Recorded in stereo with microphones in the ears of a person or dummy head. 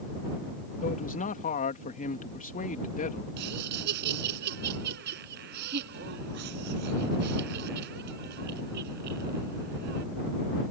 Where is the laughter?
65° right (ahead or behind).